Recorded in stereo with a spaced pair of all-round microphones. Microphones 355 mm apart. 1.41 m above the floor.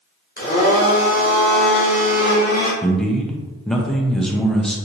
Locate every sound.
0.4 s a blender: 25° left (ahead or behind), 1.3 m
2.8 s a man speaking: centre (ahead or behind), 0.6 m